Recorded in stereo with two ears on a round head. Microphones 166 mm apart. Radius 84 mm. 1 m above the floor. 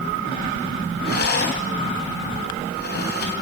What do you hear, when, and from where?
1.1 s a rattle: 60° left (ahead or behind), 3.5 m